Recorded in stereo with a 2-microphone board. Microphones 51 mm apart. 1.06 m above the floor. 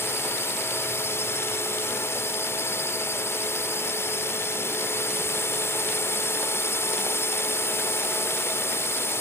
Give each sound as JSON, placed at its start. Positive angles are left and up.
{"t": 0.0, "sound": "a drone", "side_deg": 55}